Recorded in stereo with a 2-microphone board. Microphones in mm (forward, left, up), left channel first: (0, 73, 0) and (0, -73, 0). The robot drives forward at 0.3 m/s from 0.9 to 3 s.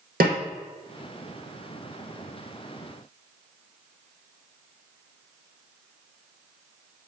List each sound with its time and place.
0.2 s a snare drum: 80° right, 1.3 m